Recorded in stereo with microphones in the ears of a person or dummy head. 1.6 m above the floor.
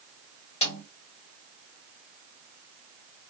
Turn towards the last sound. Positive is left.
turn(degrees=30)  # may be behind; listen again after turning